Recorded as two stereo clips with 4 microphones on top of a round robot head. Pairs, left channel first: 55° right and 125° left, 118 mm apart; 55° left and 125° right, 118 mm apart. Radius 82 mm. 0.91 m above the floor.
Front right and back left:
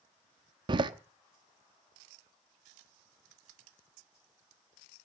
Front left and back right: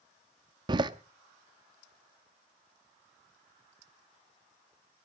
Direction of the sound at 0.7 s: Straight behind.